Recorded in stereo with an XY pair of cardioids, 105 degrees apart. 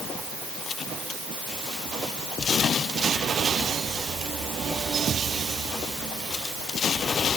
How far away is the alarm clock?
I don't hear an alarm clock.